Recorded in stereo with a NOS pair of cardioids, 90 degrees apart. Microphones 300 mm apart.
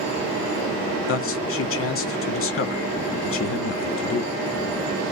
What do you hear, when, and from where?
1.1 s a man speaking: 45° left, 1.2 m